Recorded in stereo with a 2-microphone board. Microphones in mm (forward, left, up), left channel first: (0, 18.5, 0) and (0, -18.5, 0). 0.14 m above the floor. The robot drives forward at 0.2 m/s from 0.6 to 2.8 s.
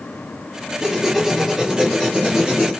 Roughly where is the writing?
Centre.